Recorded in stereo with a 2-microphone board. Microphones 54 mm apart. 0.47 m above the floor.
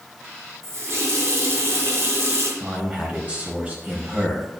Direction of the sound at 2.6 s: 30° right (ahead or behind).